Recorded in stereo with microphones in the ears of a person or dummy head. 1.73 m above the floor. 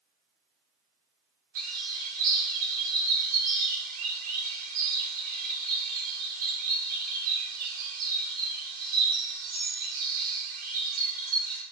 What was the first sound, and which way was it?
A bird, 35° right (ahead or behind).